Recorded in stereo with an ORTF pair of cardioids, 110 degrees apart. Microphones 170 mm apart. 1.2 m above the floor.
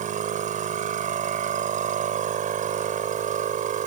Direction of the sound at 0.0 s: 50° right.